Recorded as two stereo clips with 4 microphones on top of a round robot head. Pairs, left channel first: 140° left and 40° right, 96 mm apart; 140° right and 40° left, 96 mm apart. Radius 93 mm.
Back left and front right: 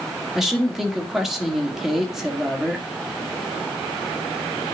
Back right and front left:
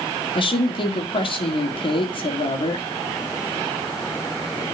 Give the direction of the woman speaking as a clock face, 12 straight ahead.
4 o'clock.